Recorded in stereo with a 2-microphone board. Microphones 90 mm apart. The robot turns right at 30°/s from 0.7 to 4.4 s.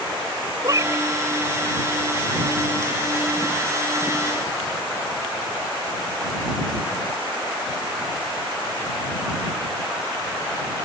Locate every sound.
0.6 s a cat meowing: 40° right (ahead or behind); by 1.1 s 30° right (ahead or behind)